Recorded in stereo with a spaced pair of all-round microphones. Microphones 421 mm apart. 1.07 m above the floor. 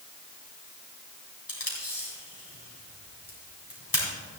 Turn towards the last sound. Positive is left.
turn(degrees=55)  # may be behind; listen again after turning